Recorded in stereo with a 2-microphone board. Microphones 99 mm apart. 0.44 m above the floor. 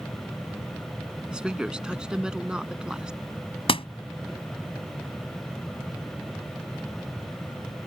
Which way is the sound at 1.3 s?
10° right (ahead or behind).